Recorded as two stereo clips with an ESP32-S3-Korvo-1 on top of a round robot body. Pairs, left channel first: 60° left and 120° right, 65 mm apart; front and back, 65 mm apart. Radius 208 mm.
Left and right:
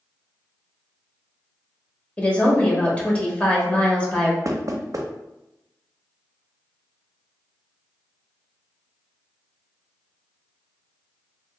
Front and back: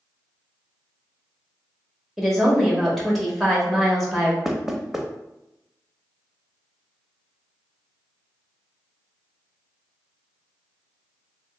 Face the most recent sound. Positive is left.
turn(degrees=-95)